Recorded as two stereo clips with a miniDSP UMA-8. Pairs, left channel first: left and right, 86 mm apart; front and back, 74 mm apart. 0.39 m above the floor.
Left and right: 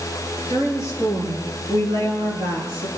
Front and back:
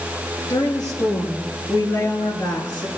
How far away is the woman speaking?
About 8.5 m.